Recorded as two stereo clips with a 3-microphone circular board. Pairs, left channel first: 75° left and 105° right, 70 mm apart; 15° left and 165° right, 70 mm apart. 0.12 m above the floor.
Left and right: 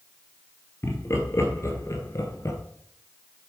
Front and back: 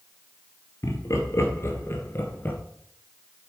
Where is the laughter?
35° left, 2 m; by 2.6 s 70° left, 1.6 m.